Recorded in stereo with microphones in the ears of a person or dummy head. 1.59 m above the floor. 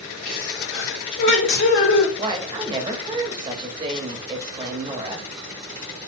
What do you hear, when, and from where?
0.2 s a sneeze: 65° left (ahead or behind), 1.2 m
2.2 s a woman speaking: 25° right (ahead or behind), 0.9 m